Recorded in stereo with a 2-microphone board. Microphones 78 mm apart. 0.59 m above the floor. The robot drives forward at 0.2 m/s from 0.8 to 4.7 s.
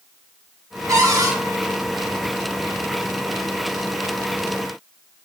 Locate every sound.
0.9 s a cupboard door: 45° right (ahead or behind), 0.7 m